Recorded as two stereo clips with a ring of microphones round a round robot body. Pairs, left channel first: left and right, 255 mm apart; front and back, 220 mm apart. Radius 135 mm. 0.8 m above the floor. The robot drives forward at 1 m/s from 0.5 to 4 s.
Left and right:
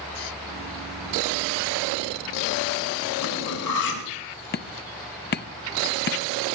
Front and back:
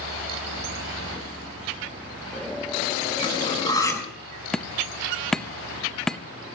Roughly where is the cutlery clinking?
Ahead left.